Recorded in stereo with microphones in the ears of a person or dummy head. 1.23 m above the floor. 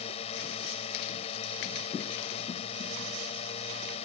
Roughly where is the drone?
Left.